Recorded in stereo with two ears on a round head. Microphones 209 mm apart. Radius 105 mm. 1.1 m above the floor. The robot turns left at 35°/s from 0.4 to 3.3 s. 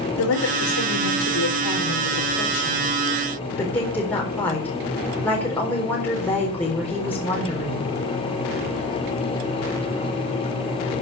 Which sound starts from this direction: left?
A woman speaking, at 0.2 s.